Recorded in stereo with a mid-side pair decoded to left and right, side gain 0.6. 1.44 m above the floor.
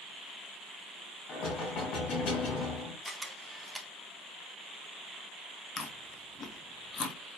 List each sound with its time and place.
1.3 s knocking: 50° left, 2.5 m
3.0 s a camera shutter: straight ahead, 0.9 m
5.8 s chewing: 30° left, 1.1 m